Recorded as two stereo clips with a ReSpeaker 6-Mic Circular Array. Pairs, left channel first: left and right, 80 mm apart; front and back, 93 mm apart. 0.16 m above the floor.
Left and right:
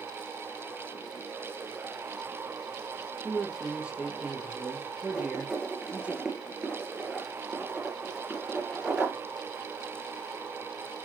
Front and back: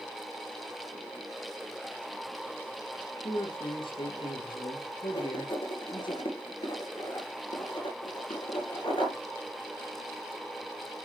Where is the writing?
10° right, 3 m.